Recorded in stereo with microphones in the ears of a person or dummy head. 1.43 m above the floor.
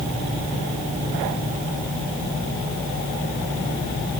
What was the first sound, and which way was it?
Only background noise.